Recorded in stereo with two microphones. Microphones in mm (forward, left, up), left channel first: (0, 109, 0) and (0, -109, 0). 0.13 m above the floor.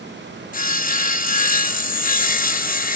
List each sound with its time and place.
0.5 s sawing: 40° left (ahead or behind), 0.6 m